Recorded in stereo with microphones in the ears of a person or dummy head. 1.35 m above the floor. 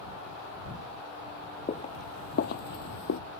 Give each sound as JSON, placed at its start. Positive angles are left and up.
{"t": 1.7, "sound": "footsteps", "side_deg": 25}